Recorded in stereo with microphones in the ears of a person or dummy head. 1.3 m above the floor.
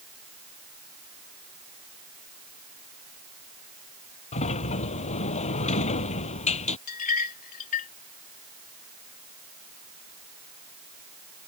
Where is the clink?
45° left (ahead or behind).